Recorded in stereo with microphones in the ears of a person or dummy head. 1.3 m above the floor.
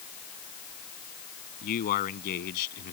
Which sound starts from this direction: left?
A man speaking, at 1.6 s.